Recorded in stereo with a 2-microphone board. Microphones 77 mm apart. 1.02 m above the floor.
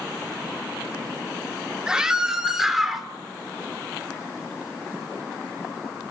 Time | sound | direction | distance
1.9 | a scream | 10° right (ahead or behind) | 2.5 m